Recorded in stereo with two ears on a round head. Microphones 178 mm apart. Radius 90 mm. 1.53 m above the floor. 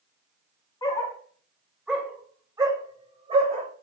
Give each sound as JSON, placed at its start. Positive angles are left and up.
{"t": 0.8, "sound": "a dog barking", "side_deg": 20, "distance_m": 2.0}